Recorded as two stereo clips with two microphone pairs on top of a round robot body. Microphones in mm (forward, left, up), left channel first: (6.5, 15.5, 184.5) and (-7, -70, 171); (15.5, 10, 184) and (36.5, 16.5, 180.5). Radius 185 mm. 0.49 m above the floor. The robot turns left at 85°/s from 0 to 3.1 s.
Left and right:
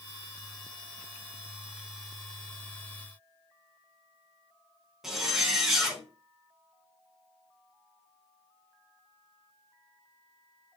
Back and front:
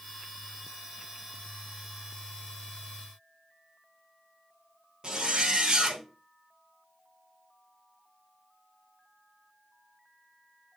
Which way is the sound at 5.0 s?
20° right.